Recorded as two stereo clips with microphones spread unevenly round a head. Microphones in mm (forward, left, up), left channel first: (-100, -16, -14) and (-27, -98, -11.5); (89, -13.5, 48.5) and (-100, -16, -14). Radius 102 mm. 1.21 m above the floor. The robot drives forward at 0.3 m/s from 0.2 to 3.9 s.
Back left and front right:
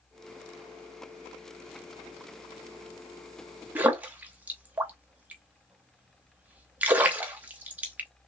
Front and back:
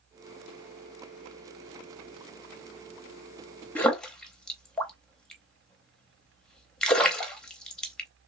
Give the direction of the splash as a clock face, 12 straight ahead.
12 o'clock.